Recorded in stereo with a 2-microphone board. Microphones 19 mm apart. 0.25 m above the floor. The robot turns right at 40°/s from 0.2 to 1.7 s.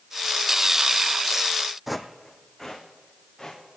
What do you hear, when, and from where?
1.9 s footsteps: 10° right (ahead or behind), 0.7 m; by 3.6 s 15° left (ahead or behind), 2.5 m